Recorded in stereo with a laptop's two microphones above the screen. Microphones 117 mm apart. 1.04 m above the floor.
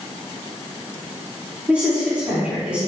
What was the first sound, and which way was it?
A woman speaking, 10° right (ahead or behind).